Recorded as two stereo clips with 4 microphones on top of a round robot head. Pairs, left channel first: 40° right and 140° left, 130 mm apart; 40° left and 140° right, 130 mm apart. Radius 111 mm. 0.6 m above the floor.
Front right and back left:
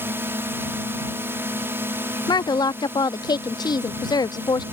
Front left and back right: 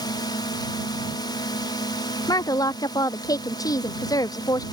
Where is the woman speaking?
5° right.